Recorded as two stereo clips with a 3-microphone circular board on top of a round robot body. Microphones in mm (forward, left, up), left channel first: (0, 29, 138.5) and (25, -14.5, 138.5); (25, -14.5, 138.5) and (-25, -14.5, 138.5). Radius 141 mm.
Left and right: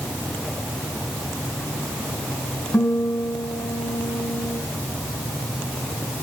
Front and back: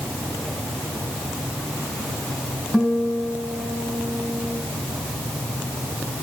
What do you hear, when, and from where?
2.7 s a guitar: 85° left, 5.5 m